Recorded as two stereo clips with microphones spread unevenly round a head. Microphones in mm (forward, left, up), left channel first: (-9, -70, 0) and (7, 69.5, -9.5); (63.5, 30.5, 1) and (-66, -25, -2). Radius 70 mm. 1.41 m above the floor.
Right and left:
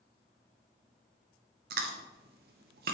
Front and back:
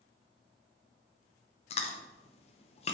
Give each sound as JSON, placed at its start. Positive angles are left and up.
{"t": 1.7, "sound": "chewing", "azimuth_deg": 70, "distance_m": 0.8}